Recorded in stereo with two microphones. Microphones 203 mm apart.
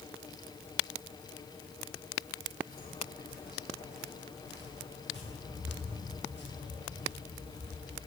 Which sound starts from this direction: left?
Footsteps, at 2.7 s.